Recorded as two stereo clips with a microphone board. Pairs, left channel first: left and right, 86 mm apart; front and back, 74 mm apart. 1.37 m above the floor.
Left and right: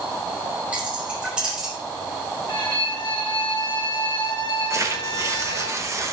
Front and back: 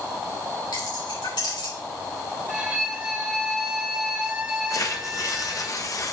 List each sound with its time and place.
0.7 s keys jangling: 15° right, 3.5 m; by 1.7 s 10° right, 4 m
2.5 s a violin: 105° left, 1.6 m
4.7 s tearing paper: 40° right, 0.9 m